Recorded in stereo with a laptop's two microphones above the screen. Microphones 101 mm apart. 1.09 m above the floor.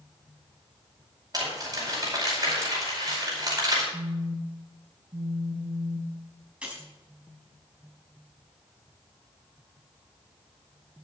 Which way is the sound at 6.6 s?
10° right (ahead or behind).